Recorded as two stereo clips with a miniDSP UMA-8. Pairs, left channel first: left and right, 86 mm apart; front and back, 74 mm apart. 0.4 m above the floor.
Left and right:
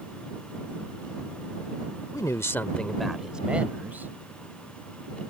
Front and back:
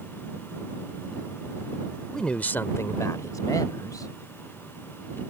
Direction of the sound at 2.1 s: 80° left.